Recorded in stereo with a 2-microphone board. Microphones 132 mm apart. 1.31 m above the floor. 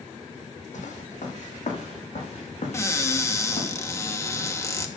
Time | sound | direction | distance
0.7 | footsteps | 65° left (ahead or behind) | 3.5 m
2.7 | a cupboard door | 20° left (ahead or behind) | 1.0 m